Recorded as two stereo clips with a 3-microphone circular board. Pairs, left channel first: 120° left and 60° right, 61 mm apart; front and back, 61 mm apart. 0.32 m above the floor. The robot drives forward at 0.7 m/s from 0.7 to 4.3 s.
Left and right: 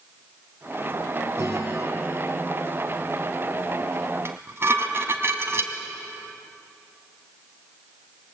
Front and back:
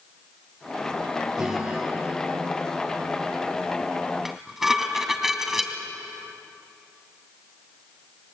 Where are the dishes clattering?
95° right, 1.8 m.